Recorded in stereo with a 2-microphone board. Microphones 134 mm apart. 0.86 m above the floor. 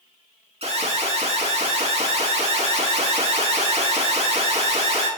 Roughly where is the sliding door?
I don't hear a sliding door.